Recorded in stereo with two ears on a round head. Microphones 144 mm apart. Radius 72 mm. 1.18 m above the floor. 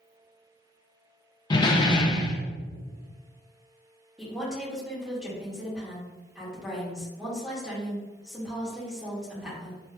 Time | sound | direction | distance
1.5 | a door slam | 25° left (ahead or behind) | 0.5 m
4.2 | a woman speaking | 5° right (ahead or behind) | 1.7 m